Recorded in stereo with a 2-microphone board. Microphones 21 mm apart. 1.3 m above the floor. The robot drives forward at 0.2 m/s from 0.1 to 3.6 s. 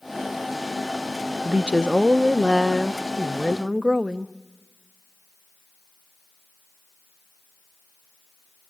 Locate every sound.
1.4 s a woman speaking: 60° right (ahead or behind), 0.5 m; by 4.3 s 35° right (ahead or behind), 0.8 m